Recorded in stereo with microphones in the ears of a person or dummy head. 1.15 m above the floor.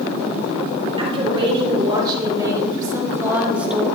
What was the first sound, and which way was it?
A woman speaking, 30° right (ahead or behind).